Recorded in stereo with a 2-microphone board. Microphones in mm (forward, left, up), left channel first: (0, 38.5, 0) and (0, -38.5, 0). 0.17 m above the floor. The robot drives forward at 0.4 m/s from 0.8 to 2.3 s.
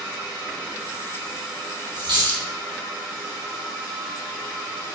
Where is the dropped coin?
65° right (ahead or behind), 1.4 m.